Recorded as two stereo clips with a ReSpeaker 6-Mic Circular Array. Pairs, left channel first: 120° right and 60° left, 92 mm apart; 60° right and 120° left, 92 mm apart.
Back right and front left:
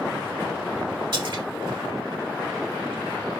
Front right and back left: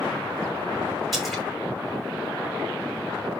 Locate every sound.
1.1 s a splash: 30° left, 5.5 m